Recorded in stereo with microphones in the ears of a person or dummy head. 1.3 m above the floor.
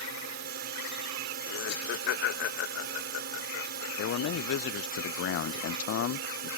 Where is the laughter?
75° left (ahead or behind).